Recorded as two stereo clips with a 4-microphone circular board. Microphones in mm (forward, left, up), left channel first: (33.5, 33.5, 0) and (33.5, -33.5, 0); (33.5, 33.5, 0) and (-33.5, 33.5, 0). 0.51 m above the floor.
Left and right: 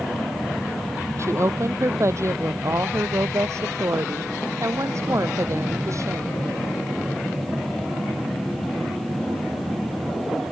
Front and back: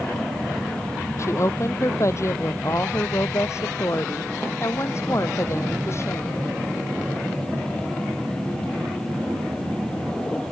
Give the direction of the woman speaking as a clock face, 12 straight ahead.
2 o'clock.